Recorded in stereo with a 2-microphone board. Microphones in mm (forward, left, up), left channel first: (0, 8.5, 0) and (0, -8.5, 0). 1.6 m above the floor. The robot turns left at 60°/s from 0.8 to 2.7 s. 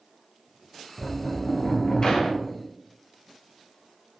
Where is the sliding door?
165° left, 0.6 m; by 2.5 s 70° left, 0.6 m.